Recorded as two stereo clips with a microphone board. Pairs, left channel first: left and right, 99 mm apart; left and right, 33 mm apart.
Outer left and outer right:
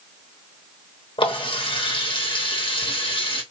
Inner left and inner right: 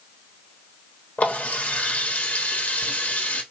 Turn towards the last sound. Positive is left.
turn(degrees=60)  # may be behind; listen again after turning